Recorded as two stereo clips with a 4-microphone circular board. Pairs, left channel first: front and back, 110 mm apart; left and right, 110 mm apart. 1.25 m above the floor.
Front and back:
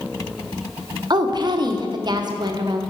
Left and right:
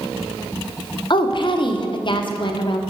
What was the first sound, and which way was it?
A woman speaking, 130° left.